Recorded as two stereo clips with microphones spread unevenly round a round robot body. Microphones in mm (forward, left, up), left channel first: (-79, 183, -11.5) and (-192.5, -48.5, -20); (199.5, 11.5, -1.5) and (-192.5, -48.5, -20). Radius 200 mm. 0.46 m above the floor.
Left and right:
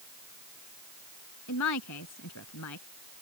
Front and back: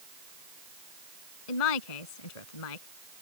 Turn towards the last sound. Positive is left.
turn(degrees=15)